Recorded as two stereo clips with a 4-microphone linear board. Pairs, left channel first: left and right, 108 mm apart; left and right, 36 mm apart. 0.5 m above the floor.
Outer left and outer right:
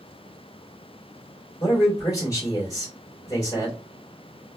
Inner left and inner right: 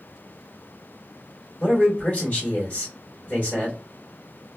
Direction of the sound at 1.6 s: 30° left (ahead or behind).